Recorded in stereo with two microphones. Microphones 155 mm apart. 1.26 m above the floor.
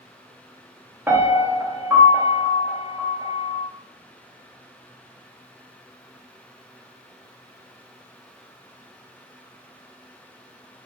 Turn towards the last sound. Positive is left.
turn(degrees=-15)  # may be behind; listen again after turning